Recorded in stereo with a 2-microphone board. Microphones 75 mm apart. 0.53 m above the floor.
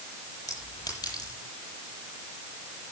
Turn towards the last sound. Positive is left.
turn(degrees=60)  # may be behind; listen again after turning